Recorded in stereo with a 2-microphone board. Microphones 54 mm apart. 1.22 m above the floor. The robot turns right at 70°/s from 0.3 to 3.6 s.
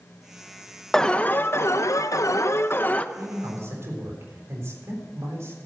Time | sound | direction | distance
0.9 | an alarm | 5° left | 0.6 m
3.1 | a man speaking | 95° right | 4 m